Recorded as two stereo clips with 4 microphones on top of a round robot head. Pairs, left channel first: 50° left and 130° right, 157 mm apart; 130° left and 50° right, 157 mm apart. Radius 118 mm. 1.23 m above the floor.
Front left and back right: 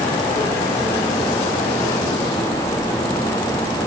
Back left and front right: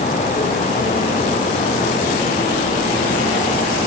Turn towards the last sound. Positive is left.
No sound to turn to.